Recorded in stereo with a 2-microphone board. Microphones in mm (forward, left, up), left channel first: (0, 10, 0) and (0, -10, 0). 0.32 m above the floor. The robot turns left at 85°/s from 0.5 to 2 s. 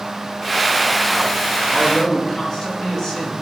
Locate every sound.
1.7 s a man speaking: centre (ahead or behind), 4 m; by 3.3 s 20° left (ahead or behind), 4 m